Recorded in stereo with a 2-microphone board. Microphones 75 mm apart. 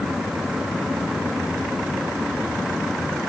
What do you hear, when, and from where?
Only background noise.